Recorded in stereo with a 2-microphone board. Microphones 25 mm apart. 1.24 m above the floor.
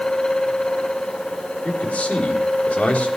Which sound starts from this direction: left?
A man speaking, at 1.6 s.